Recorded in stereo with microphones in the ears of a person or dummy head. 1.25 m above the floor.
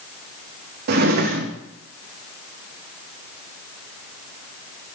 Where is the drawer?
55° right (ahead or behind), 0.8 m.